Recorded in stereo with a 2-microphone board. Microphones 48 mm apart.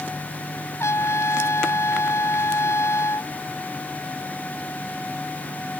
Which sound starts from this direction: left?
A trumpet, at 0.8 s.